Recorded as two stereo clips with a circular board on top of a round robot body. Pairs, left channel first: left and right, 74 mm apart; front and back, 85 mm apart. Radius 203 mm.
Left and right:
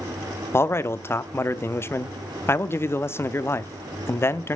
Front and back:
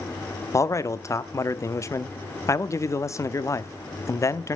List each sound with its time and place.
0.5 s a man speaking: 45° left, 1.0 m